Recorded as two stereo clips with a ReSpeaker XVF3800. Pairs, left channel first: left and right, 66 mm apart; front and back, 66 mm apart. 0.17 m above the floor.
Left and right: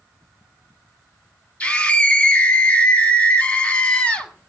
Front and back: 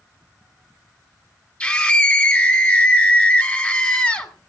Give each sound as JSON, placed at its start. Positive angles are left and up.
{"t": 1.6, "sound": "a scream", "azimuth_deg": 40, "distance_m": 1.6}